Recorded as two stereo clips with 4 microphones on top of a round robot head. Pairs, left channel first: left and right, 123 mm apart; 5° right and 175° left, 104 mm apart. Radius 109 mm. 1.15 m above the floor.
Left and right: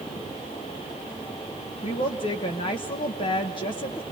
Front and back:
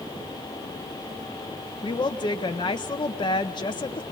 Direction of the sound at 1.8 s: 40° left.